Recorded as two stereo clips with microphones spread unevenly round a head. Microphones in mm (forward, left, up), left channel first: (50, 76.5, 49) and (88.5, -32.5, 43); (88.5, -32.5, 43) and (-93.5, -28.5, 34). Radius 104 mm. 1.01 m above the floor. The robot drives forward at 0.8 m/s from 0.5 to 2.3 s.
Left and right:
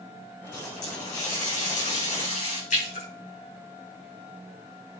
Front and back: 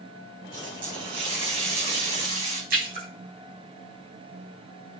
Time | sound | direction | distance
0.5 | a running tap | 110° left | 5.5 m
2.7 | a splash | 135° left | 6 m